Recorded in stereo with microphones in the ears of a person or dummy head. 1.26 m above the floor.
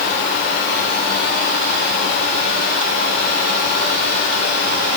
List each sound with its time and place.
Only background noise.